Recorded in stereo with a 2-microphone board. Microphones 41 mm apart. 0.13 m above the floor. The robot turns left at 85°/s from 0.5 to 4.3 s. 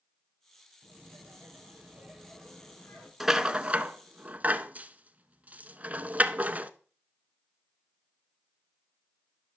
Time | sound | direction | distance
0.8 | laughter | 45° right | 3.5 m
3.2 | a rattle | 10° right (ahead or behind) | 0.6 m